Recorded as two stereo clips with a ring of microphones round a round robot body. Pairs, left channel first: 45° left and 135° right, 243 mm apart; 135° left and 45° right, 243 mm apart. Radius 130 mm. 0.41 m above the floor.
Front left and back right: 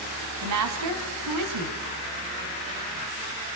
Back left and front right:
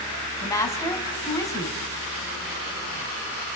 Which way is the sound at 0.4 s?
145° right.